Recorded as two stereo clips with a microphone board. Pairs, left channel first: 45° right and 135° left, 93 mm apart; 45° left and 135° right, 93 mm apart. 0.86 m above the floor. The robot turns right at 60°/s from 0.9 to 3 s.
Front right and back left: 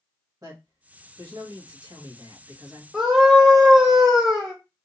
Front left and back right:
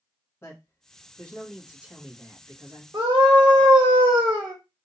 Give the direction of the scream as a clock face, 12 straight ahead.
5 o'clock.